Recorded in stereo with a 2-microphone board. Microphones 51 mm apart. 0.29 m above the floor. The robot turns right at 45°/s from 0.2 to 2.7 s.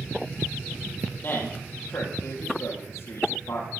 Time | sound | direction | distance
1.2 | a man speaking | 35° left (ahead or behind) | 7 m